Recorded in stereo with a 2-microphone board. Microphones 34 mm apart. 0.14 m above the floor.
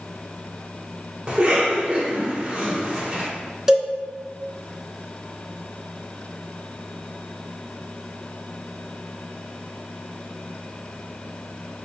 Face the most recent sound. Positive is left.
turn(degrees=-15)  # may be behind; listen again after turning